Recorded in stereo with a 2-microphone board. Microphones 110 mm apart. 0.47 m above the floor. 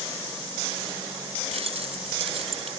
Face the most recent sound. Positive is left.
turn(degrees=-65)  # may be behind; listen again after turning